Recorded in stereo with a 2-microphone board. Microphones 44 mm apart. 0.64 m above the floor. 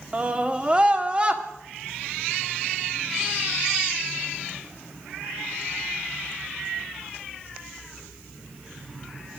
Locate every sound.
0.1 s a scream: 25° right (ahead or behind), 1.5 m